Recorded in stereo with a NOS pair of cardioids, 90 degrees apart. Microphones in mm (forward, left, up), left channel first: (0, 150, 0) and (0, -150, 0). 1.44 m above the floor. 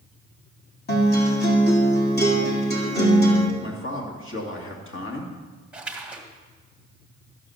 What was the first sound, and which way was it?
A guitar, 35° left.